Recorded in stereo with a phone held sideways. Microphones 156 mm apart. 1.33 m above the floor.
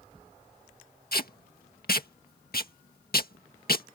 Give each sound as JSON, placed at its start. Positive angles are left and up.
{"t": 1.1, "sound": "tape being pulled", "side_deg": 75}